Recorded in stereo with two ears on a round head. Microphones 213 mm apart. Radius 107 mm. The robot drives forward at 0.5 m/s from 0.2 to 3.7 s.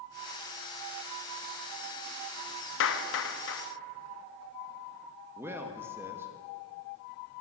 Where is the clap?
55° left (ahead or behind), 0.9 m.